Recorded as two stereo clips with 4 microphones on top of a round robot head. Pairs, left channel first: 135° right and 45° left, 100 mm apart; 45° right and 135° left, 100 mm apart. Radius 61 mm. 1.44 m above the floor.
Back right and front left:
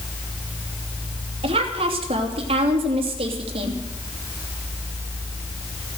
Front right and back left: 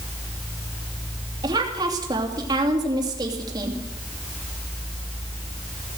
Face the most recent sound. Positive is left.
turn(degrees=80)